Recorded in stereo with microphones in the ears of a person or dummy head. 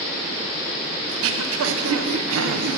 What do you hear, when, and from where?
1.1 s throat clearing: 80° right, 0.7 m